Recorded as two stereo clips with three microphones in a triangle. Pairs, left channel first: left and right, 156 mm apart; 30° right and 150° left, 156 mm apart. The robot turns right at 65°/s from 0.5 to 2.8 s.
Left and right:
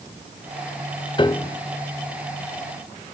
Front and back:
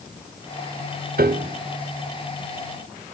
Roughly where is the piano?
Behind left.